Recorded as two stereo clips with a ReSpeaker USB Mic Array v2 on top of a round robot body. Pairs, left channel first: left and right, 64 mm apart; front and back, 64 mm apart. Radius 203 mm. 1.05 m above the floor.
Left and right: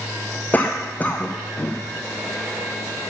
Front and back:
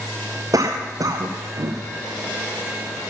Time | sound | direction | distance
0.5 | a cough | 160° left | 0.9 m